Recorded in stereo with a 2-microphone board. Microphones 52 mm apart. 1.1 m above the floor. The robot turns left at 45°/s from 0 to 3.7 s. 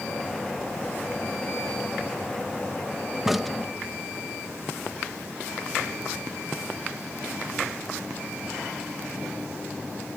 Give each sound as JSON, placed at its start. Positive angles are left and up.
{"t": 3.2, "sound": "a crack", "side_deg": -10}